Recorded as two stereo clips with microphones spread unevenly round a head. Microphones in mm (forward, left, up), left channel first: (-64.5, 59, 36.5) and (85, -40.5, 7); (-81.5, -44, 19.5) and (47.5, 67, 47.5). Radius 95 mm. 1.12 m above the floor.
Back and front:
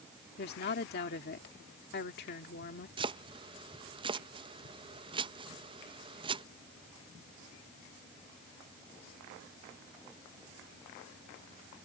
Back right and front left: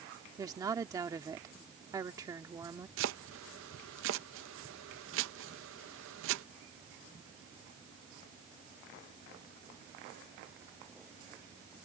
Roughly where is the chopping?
Ahead left.